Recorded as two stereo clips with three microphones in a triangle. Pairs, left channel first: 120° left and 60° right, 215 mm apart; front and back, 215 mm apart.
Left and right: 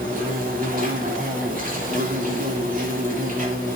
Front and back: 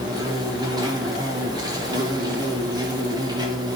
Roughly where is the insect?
Right.